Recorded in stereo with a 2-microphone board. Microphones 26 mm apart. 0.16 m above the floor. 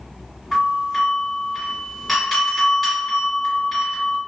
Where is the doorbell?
10° left (ahead or behind), 1.7 m.